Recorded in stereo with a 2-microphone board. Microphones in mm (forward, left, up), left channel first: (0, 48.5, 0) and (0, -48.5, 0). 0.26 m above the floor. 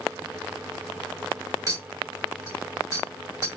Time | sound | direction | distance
1.7 | a clink | 35° right (ahead or behind) | 1.1 m